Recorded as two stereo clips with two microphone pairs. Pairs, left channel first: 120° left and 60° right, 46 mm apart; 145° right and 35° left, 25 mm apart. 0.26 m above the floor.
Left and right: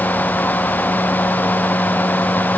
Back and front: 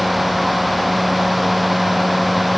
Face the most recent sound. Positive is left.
No sound to turn to.